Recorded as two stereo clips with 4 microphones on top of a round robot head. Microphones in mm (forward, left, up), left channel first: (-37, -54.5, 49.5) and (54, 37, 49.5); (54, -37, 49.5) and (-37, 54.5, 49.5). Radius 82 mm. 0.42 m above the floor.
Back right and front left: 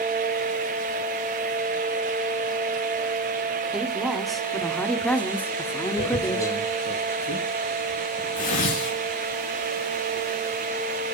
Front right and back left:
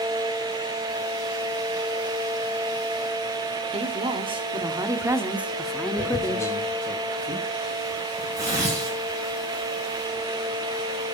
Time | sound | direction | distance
3.7 | a woman speaking | 130° left | 2 m
6.0 | tearing paper | 160° right | 7 m